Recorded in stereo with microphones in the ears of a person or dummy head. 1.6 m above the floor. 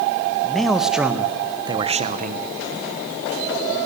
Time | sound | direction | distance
0.4 | a man speaking | centre (ahead or behind) | 2.5 m